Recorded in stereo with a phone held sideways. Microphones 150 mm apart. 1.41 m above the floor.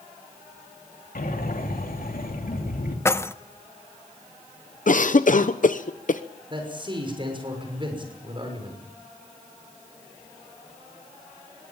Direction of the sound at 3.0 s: 20° left (ahead or behind).